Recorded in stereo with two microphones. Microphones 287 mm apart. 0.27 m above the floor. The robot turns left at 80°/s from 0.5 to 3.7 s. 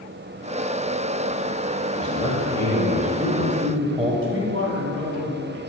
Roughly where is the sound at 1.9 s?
Left.